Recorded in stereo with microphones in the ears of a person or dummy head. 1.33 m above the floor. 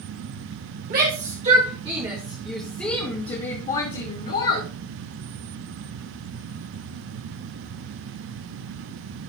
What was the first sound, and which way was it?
A shout, 50° right (ahead or behind).